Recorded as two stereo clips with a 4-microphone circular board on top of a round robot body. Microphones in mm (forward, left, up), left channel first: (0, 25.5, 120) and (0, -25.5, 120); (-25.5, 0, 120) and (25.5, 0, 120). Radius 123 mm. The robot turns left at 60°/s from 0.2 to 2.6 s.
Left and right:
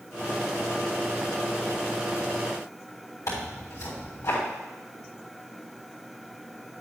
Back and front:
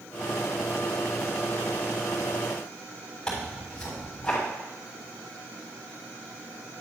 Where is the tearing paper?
105° left, 3.5 m.